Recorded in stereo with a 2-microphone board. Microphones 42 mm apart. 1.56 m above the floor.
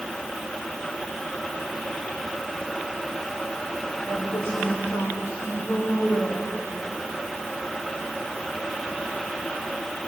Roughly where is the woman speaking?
Left.